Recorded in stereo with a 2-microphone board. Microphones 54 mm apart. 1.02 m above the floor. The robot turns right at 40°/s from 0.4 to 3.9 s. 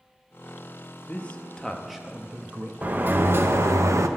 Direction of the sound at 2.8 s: 150° right.